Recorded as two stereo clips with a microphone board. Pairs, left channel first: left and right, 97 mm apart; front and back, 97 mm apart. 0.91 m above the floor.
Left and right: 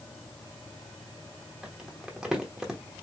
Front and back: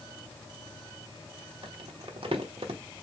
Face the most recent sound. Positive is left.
turn(degrees=-170)